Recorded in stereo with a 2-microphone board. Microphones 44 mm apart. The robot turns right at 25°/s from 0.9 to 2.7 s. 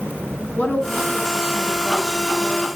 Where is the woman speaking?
105° left, 1.4 m; by 2.7 s 145° left, 1.4 m.